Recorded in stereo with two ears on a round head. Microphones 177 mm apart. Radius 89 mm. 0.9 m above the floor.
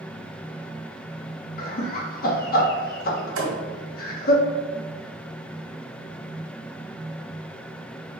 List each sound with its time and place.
1.6 s laughter: 50° left (ahead or behind), 1.7 m
3.4 s a thud: 80° right, 2.5 m